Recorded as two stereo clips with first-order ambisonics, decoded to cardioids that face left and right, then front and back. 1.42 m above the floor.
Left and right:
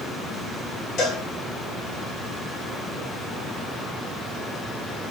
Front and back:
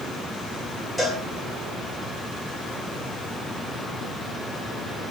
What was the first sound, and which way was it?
A cowbell, 90° left.